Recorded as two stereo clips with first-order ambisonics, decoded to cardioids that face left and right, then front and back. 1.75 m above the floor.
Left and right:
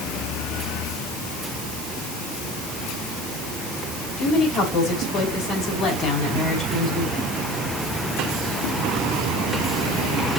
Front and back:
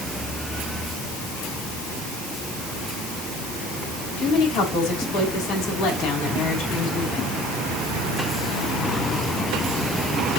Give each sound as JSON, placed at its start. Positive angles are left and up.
{"t": 4.2, "sound": "a woman speaking", "azimuth_deg": 30, "distance_m": 5.5}